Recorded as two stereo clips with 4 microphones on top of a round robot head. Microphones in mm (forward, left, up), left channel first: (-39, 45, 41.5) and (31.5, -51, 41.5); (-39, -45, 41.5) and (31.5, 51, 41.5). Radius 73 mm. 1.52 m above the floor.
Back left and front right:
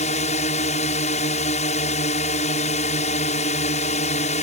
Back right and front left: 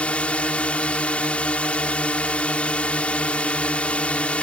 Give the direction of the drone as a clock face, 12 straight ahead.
7 o'clock.